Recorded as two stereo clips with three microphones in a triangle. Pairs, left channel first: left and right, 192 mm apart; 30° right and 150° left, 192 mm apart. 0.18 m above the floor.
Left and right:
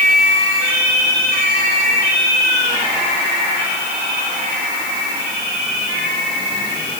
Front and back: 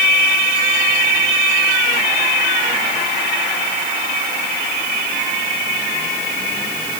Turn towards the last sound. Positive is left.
No sound to turn to.